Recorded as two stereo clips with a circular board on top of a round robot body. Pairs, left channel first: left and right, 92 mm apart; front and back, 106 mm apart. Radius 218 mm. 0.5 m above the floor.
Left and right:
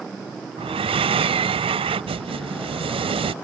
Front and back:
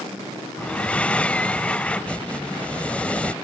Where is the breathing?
80° right.